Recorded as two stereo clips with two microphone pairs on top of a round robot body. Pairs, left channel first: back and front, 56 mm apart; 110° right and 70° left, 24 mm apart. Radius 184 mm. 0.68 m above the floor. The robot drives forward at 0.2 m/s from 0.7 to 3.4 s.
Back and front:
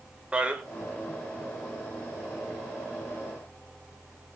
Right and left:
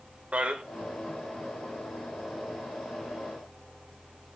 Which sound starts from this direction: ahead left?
A man speaking, at 0.3 s.